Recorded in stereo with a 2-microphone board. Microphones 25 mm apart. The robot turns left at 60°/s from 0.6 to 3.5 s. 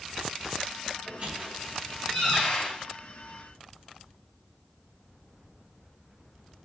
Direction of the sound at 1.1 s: 70° right (ahead or behind).